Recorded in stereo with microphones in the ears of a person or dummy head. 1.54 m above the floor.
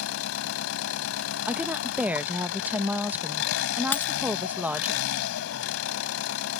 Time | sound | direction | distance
0.0 | an engine running | 85° left | ?
1.5 | a woman speaking | 5° right (ahead or behind) | ?
3.9 | a dropped coin | 10° left (ahead or behind) | ?